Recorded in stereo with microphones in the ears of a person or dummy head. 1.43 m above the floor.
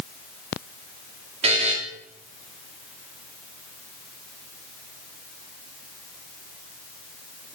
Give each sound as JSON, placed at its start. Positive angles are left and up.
{"t": 1.4, "sound": "a buzzer", "side_deg": -35, "distance_m": 1.5}